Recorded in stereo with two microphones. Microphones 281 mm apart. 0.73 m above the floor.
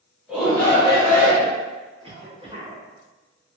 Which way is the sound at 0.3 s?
5° right (ahead or behind).